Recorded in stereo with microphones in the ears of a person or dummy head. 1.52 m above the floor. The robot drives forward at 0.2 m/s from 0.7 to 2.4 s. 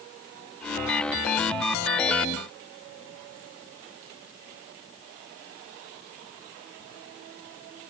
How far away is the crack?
I don't hear a crack.